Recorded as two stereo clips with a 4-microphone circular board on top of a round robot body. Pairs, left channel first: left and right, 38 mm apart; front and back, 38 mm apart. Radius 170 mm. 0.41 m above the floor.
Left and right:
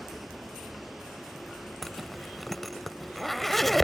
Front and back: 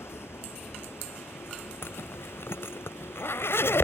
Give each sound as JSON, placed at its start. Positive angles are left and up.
{"t": 0.0, "sound": "a vehicle", "azimuth_deg": -5}
{"t": 1.8, "sound": "a zipper", "azimuth_deg": 0}